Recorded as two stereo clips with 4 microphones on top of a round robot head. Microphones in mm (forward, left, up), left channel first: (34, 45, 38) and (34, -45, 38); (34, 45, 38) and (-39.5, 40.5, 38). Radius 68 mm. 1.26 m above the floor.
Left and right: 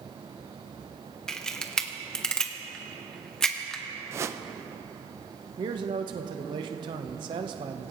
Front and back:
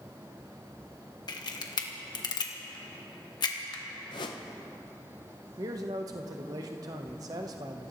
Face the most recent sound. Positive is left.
turn(degrees=-130)